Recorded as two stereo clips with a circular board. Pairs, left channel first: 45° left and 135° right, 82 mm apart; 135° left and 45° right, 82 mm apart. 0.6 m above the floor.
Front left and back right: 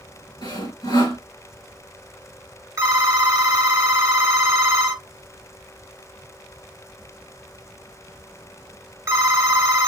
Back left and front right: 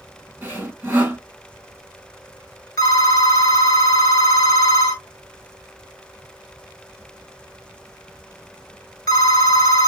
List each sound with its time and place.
0.4 s sawing: 15° left, 2 m
2.8 s a phone ringing: 175° left, 1.0 m